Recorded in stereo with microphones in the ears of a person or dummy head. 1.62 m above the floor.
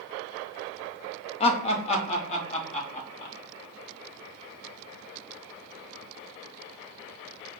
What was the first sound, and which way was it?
Laughter, 35° left (ahead or behind).